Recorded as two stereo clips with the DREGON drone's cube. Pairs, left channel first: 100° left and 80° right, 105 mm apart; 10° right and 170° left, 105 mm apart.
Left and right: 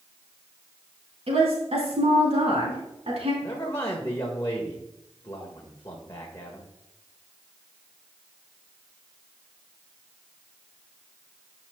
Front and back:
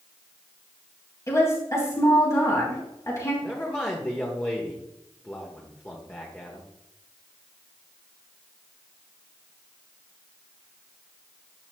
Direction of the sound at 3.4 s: 50° left.